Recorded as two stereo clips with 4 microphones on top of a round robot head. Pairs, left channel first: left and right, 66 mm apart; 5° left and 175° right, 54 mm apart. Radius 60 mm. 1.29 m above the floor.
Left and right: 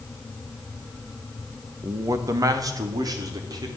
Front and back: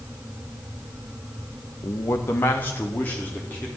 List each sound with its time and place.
1.8 s a man speaking: 40° right, 1.2 m; by 3.7 s 65° right, 3.5 m